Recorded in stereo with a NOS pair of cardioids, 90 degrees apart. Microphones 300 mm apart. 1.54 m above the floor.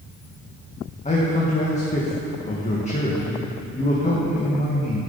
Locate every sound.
1.1 s a man speaking: 25° left, 1.7 m